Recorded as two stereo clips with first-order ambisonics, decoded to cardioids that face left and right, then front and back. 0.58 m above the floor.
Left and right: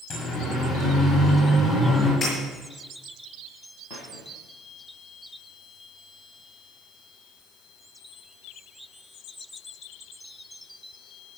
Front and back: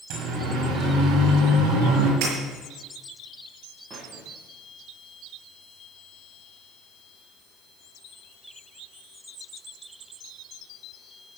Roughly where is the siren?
Behind left.